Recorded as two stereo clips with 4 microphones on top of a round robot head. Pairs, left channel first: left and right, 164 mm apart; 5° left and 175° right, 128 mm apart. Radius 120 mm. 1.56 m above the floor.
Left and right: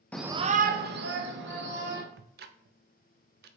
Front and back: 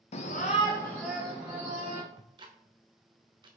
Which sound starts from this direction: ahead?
A shout, at 0.1 s.